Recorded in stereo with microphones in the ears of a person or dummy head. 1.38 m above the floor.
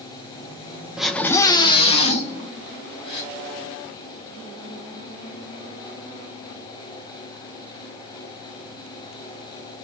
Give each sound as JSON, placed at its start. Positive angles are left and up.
{"t": 1.0, "sound": "a scream", "side_deg": -5, "distance_m": 0.8}
{"t": 3.0, "sound": "a gasp", "side_deg": 30, "distance_m": 3.0}